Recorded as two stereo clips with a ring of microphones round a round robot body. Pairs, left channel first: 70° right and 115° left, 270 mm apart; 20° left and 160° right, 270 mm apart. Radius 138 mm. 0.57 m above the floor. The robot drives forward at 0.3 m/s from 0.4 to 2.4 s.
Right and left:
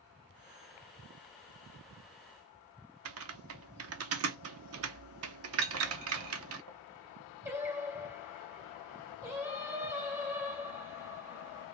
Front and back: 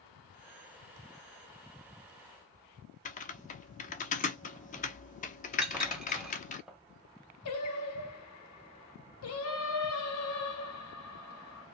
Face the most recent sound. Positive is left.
turn(degrees=35)